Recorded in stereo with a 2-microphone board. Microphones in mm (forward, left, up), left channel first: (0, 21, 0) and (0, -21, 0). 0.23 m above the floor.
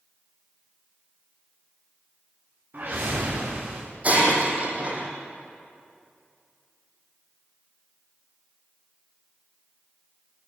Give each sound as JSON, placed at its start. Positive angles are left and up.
{"t": 2.7, "sound": "a whoosh", "side_deg": -45, "distance_m": 8.0}
{"t": 4.0, "sound": "breaking glass", "side_deg": -35, "distance_m": 5.5}